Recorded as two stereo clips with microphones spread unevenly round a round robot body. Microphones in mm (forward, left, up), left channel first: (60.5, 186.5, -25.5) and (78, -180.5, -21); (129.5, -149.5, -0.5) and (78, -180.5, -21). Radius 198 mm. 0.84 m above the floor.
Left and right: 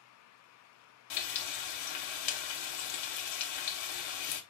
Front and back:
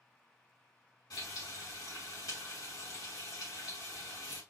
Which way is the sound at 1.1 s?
80° left.